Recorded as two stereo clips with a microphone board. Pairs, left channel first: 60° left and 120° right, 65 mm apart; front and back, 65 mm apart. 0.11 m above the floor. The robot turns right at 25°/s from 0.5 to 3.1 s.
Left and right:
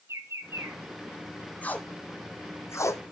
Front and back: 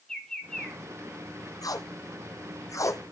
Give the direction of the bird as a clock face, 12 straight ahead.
3 o'clock.